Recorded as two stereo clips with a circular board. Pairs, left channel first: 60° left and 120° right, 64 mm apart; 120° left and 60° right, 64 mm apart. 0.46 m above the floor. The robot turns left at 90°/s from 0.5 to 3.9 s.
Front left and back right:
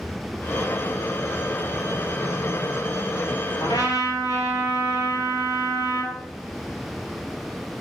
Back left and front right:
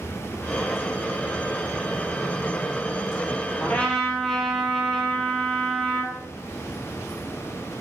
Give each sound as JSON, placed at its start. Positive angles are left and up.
{"t": 3.6, "sound": "a trumpet", "azimuth_deg": 65, "distance_m": 1.7}